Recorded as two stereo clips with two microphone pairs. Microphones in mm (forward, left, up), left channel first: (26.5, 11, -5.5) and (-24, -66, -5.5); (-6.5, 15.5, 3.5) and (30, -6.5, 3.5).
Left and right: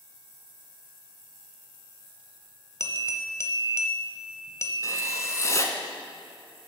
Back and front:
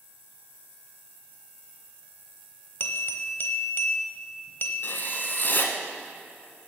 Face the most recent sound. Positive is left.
turn(degrees=110)